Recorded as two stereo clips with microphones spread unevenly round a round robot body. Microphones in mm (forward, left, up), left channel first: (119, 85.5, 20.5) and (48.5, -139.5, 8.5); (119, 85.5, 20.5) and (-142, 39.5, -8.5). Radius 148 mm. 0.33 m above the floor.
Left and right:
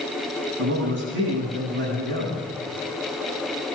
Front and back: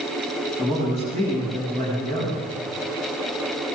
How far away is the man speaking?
About 8.5 m.